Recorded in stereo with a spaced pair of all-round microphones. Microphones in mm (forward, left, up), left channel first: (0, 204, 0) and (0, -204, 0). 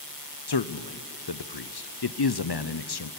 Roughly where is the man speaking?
Left.